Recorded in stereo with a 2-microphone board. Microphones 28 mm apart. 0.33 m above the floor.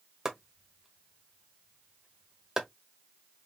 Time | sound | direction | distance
0.2 | chopping | 20° right (ahead or behind) | 1.3 m